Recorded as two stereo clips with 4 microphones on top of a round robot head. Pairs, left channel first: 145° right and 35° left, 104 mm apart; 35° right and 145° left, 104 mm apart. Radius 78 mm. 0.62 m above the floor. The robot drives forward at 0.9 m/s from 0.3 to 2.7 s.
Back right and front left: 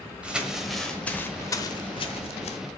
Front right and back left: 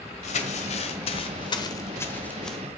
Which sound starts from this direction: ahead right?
Crumpling, at 0.2 s.